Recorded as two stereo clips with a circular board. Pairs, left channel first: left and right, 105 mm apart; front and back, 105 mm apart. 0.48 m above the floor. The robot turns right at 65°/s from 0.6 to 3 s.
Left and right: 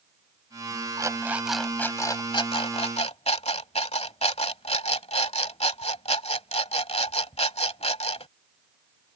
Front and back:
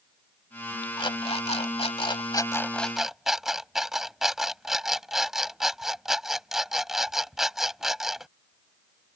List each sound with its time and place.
1.0 s an alarm clock: 40° right; by 8.3 s 95° left